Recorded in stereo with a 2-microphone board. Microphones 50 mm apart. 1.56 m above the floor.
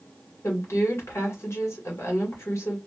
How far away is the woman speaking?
About 1.7 m.